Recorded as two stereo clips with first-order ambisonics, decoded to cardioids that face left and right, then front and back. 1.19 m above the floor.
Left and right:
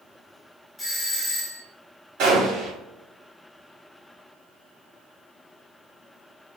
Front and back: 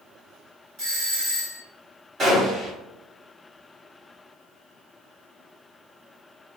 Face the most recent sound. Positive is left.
turn(degrees=-115)